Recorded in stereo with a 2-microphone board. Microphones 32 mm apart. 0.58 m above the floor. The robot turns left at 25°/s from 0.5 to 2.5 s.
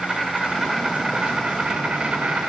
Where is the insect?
5° right, 2.5 m; by 2.5 s 55° right, 2.5 m.